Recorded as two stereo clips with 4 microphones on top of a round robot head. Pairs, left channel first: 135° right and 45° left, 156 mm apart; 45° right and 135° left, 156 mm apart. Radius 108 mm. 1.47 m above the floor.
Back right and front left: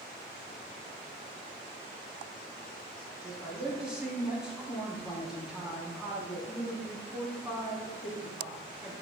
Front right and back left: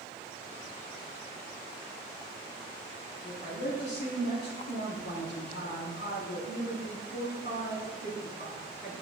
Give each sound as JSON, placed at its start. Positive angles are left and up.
{"t": 3.2, "sound": "a woman speaking", "azimuth_deg": -40, "distance_m": 4.0}